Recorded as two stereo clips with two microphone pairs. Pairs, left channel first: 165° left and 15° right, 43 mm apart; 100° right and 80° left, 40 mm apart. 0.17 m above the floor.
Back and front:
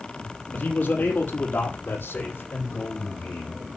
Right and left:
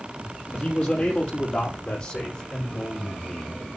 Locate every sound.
0.5 s a man speaking: 145° right, 5 m; by 3.6 s 160° right, 9.5 m